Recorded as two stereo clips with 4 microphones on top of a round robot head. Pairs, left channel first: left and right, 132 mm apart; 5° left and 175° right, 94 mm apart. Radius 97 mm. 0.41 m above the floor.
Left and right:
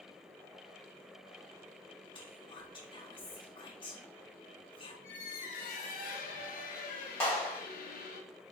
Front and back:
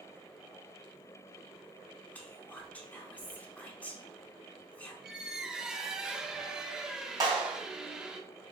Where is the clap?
160° left, 1.6 m.